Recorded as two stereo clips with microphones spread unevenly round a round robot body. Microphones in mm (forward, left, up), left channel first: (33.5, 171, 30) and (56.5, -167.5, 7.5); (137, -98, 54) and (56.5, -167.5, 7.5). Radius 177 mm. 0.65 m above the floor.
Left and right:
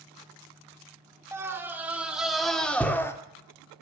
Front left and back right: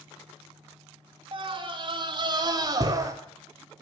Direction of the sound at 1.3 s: 170° right.